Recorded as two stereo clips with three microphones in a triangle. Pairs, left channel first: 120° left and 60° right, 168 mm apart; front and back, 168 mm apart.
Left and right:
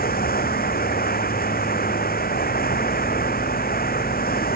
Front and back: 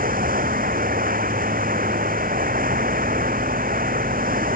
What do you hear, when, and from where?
0.0 s running water: 145° left